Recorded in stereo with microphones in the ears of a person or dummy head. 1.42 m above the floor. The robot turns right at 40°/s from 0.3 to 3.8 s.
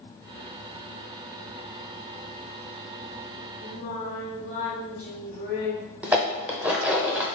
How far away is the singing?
About 1.5 m.